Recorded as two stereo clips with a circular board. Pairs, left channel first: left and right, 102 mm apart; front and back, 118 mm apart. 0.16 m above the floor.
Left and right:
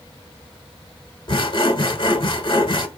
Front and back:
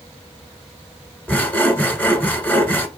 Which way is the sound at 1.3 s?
75° left.